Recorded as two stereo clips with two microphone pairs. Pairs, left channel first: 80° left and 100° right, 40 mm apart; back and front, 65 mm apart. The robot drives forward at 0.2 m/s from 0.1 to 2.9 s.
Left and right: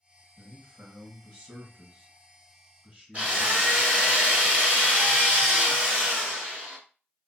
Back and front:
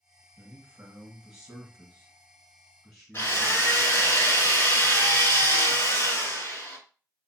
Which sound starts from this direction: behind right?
A drill, at 3.1 s.